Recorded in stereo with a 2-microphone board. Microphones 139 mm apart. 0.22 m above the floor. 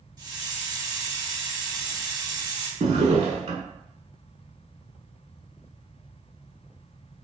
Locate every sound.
0.2 s a hiss: 30° right (ahead or behind), 0.9 m
2.8 s a drawer: 55° right (ahead or behind), 0.6 m